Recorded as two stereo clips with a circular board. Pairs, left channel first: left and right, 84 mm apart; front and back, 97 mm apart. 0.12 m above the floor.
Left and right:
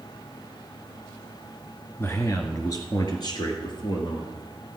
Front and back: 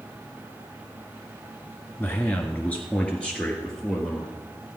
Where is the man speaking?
50° left, 1.4 m; by 4.3 s 85° left, 2.5 m.